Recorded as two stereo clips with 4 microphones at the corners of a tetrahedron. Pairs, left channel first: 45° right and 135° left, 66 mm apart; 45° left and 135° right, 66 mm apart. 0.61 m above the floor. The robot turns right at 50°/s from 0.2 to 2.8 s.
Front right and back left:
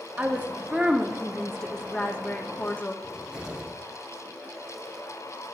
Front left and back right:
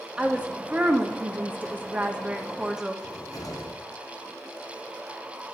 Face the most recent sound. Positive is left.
turn(degrees=55)